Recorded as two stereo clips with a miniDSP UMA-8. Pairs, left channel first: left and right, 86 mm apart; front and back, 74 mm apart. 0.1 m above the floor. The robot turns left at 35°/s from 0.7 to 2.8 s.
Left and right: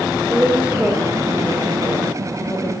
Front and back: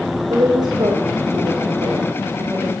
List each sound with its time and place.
0.3 s a woman speaking: 165° right, 8 m; by 2.7 s 125° left, 8 m